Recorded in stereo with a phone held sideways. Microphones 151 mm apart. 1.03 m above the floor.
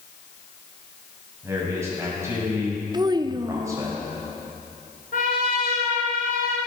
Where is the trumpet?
75° left (ahead or behind), 3 m.